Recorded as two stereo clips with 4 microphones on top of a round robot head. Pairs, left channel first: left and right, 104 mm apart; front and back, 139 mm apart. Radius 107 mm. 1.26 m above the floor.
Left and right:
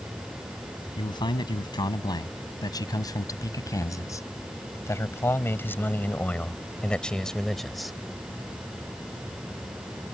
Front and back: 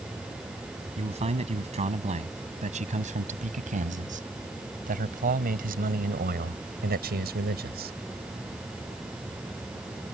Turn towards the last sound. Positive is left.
turn(degrees=180)